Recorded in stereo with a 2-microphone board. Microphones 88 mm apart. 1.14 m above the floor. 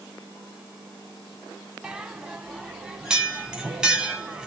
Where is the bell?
10° right (ahead or behind), 1.3 m.